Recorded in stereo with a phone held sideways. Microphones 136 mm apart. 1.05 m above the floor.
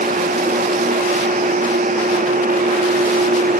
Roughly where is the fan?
Right.